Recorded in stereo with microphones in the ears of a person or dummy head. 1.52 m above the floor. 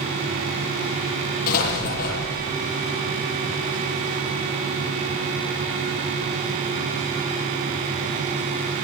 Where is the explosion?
55° left (ahead or behind), 9.5 m.